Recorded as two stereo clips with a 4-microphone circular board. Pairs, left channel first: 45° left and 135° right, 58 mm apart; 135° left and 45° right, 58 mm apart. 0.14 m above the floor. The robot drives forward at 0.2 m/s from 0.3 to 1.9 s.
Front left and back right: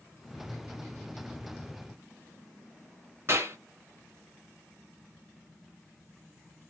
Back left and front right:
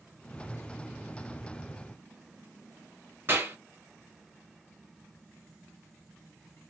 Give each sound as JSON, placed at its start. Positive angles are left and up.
{"t": 3.3, "sound": "a clap", "azimuth_deg": -95, "distance_m": 3.0}